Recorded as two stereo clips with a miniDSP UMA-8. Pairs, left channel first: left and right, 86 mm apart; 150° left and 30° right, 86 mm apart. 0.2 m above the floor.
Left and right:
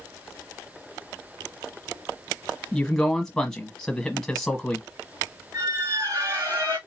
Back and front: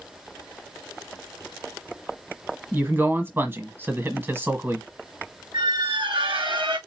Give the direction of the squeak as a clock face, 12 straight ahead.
2 o'clock.